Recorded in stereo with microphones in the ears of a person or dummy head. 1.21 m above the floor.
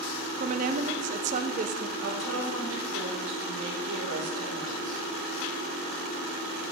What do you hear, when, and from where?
0.4 s a woman speaking: 40° right (ahead or behind), 0.7 m
2.0 s a woman speaking: 85° right, 4 m